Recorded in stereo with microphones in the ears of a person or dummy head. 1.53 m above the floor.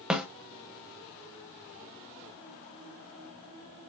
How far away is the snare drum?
About 1.2 m.